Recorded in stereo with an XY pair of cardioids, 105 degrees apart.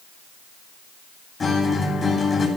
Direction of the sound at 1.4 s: 35° left.